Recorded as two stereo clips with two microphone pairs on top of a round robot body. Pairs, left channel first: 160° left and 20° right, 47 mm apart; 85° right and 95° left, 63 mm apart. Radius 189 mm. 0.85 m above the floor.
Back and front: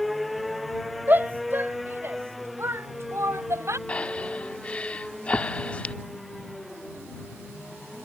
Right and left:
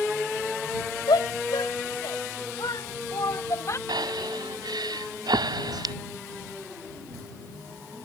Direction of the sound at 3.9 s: 95° left.